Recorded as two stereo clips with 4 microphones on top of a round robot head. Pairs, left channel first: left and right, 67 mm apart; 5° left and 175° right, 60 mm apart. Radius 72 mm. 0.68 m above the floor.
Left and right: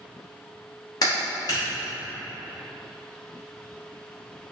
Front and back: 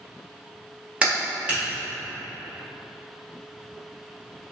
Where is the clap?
115° left, 1.7 m.